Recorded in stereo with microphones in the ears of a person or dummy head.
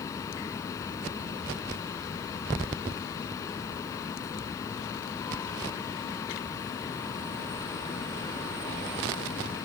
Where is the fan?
20° left (ahead or behind).